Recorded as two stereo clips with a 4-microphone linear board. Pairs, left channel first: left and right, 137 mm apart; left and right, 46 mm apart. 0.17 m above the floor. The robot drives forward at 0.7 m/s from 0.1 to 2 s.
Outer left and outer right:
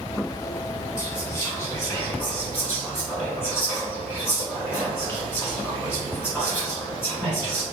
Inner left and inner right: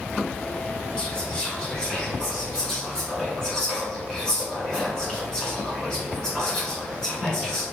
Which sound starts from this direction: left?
Whispering, at 1.0 s.